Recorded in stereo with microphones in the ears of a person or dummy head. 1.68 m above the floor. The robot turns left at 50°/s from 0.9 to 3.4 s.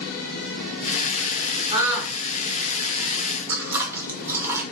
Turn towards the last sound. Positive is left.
turn(degrees=-10)  # may be behind; listen again after turning